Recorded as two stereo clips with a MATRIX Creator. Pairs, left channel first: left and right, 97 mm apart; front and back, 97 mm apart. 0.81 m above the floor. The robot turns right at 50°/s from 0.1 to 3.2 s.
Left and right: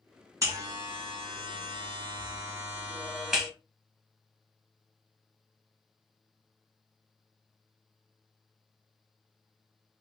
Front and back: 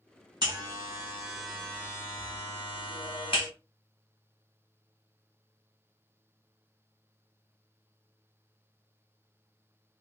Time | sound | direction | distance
0.4 | a buzzer | 145° right | 1.2 m